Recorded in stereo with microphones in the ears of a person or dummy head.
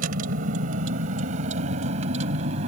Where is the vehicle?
55° right (ahead or behind); by 2.7 s 45° right (ahead or behind).